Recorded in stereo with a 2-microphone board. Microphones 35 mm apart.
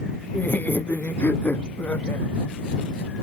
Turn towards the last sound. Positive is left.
turn(degrees=75)  # may be behind; listen again after turning